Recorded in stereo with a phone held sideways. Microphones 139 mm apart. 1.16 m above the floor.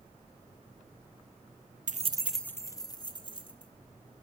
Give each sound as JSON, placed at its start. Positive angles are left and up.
{"t": 1.9, "sound": "keys jangling", "side_deg": -70, "distance_m": 0.5}